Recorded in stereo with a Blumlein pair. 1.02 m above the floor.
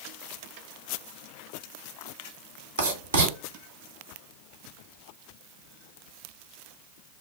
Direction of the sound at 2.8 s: 70° right.